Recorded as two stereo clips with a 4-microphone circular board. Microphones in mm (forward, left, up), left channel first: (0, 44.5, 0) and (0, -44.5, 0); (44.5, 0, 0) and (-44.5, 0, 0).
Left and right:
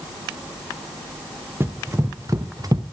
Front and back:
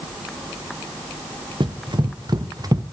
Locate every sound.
1.6 s running footsteps: 150° right, 1.7 m; by 2.8 s 130° right, 1.1 m